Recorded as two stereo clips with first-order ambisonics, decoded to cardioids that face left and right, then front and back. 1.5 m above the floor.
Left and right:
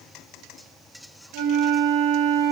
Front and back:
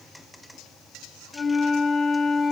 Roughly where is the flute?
Right.